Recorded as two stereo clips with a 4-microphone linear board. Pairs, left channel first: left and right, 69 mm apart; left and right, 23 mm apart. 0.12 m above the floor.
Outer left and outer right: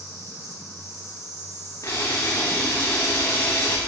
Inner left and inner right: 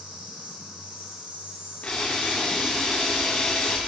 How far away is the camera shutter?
About 4 m.